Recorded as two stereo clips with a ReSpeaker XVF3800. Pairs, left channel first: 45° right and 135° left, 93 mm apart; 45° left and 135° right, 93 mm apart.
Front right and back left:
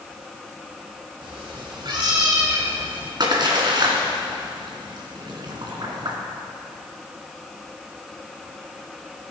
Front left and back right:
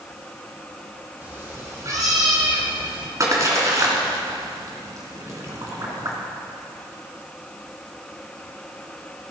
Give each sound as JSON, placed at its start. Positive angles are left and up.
{"t": 1.2, "sound": "a cat meowing", "azimuth_deg": 155, "distance_m": 2.5}
{"t": 3.2, "sound": "a splash", "azimuth_deg": 170, "distance_m": 2.5}